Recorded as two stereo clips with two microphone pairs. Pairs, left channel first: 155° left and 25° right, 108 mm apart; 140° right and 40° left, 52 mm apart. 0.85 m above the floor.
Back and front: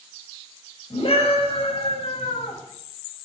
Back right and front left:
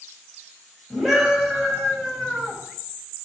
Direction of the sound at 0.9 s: 125° left.